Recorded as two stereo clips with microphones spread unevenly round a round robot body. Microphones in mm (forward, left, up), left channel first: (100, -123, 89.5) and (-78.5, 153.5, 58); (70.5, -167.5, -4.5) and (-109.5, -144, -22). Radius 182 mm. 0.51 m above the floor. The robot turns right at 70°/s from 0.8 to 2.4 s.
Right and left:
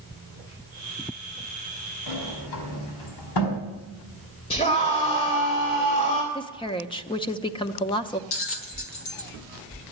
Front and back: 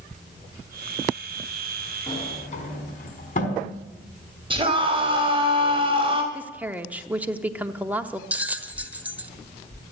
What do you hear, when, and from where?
2.1 s a sliding door: 75° right, 4.5 m; by 3.6 s 50° right, 4.5 m
4.5 s a scream: 130° right, 3 m
6.3 s a woman speaking: 125° right, 0.8 m
8.3 s a bell: 105° right, 1.4 m